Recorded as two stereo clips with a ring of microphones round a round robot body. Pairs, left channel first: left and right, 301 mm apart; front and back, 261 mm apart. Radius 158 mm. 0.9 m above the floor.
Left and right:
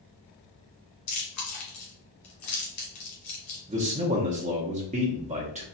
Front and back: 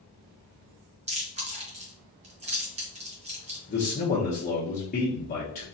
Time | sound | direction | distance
1.1 | chewing | 115° left | 1.5 m
3.7 | a man speaking | 35° right | 0.8 m